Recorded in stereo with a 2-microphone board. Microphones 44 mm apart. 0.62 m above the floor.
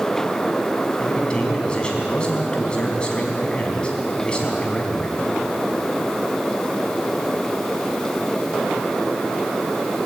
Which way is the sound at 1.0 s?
20° left (ahead or behind).